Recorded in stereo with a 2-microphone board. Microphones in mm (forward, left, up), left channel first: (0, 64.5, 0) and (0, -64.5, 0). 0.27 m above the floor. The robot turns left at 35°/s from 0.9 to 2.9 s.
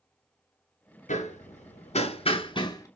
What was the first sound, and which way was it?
Hammering, 80° left.